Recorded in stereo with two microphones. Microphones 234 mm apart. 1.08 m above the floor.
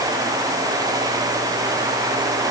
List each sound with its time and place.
Only background noise.